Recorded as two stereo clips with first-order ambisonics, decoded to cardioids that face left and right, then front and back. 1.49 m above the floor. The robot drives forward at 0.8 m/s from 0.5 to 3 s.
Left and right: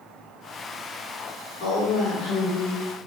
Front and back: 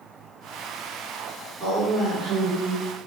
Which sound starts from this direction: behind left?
A woman speaking, at 1.6 s.